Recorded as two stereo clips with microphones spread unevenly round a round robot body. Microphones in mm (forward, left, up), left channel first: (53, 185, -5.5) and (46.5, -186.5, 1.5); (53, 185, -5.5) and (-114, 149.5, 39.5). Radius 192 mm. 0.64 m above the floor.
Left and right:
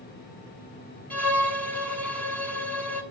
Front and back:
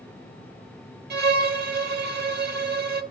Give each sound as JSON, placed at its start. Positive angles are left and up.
{"t": 1.1, "sound": "a violin", "azimuth_deg": 175, "distance_m": 1.2}